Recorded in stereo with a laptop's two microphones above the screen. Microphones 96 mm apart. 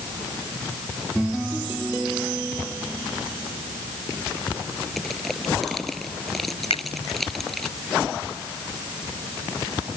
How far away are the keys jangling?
I don't hear keys jangling.